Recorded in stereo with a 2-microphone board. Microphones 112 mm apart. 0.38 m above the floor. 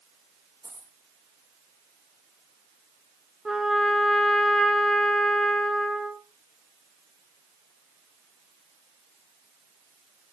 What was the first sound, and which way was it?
A dropped coin, 25° left (ahead or behind).